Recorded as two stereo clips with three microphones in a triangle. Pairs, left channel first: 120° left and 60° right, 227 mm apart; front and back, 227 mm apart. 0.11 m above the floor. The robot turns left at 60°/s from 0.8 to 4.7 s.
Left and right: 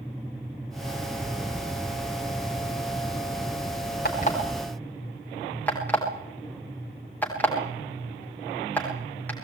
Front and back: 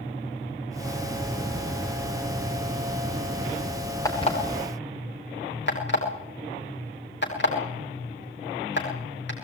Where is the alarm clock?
75° left, 9 m; by 9.3 s 40° left, 9 m.